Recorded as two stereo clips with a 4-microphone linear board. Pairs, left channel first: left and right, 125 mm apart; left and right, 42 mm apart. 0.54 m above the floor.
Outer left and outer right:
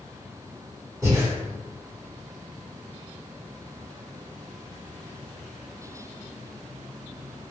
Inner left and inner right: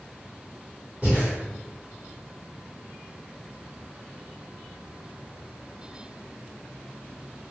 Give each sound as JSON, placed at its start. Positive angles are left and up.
{"t": 1.0, "sound": "breathing", "side_deg": -30, "distance_m": 1.6}